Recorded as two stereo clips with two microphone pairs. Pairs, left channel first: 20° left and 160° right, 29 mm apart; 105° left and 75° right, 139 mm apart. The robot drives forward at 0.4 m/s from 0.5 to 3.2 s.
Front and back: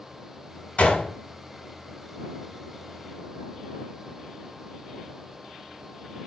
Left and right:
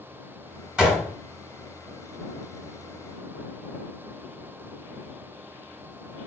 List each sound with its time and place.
0.8 s a gunshot: 10° left, 1.7 m